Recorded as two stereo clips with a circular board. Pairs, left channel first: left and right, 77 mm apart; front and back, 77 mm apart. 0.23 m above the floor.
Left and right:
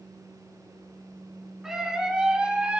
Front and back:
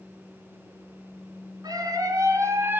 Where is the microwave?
No microwave in this recording.